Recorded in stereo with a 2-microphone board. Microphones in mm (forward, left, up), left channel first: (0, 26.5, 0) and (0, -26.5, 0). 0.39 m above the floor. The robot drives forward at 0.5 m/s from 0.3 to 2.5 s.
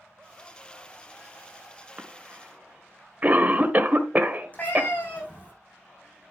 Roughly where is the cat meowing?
Left.